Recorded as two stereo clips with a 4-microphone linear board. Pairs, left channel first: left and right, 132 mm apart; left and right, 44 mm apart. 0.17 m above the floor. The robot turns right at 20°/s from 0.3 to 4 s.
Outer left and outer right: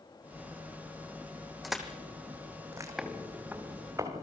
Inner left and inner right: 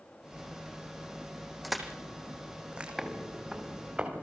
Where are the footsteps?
5° right (ahead or behind), 3 m; by 4.2 s 25° right (ahead or behind), 5 m.